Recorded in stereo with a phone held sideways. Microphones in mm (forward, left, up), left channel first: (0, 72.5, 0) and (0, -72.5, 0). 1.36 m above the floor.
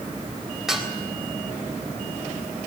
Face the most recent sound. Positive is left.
turn(degrees=-5)  # may be behind; listen again after turning